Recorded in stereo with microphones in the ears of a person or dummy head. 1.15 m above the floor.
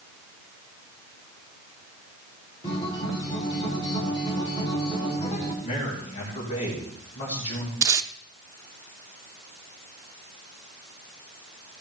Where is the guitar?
30° left (ahead or behind), 2.5 m.